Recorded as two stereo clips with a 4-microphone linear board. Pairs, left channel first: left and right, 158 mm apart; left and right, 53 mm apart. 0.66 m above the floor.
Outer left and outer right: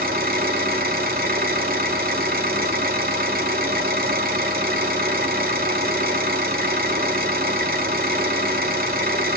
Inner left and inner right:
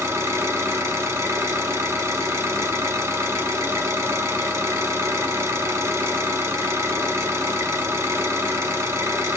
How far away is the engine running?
About 1.3 m.